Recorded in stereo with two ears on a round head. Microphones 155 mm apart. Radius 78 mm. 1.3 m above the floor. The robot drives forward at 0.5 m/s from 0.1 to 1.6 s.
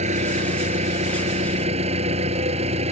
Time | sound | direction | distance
0.0 | an engine running | 45° right (ahead or behind) | ?